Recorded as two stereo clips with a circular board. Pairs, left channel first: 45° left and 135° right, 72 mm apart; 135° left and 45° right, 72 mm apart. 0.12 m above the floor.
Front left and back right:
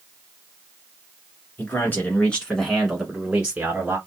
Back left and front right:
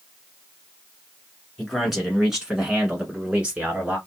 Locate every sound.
1.6 s a man speaking: 45° left, 1.4 m; by 4.0 s 100° right, 1.4 m